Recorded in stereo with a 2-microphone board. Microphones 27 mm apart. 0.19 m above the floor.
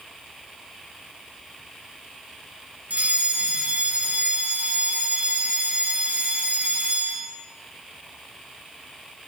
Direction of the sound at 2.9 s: 65° right (ahead or behind).